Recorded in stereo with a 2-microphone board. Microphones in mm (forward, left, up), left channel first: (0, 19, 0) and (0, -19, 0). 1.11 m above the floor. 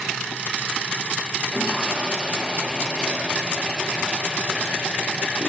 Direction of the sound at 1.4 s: 10° right (ahead or behind).